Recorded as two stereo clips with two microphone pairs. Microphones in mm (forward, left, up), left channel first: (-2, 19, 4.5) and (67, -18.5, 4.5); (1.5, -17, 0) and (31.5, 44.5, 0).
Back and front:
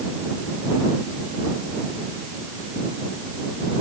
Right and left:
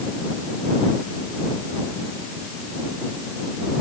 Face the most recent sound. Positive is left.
No sound to turn to.